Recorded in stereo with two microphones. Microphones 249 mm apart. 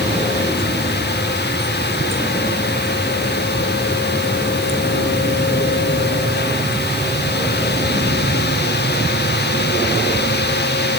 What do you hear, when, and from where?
Only background noise.